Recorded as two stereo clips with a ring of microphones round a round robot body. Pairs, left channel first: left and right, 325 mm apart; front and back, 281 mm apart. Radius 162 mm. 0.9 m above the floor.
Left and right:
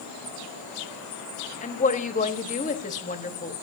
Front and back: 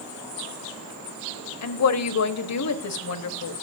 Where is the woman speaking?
25° left, 1.2 m.